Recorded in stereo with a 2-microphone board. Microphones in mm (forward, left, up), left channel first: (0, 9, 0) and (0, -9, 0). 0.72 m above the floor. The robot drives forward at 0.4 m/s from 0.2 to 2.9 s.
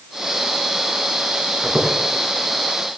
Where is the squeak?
15° right (ahead or behind), 2.5 m.